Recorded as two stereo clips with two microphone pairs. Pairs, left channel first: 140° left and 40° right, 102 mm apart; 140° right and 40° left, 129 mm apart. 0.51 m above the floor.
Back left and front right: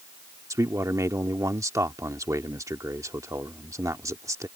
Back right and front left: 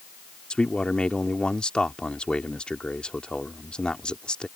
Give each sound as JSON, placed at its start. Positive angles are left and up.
{"t": 0.5, "sound": "a man speaking", "azimuth_deg": -60}